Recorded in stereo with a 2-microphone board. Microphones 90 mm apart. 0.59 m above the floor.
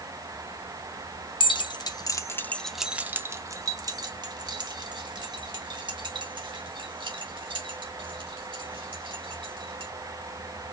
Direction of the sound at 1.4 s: 65° left (ahead or behind).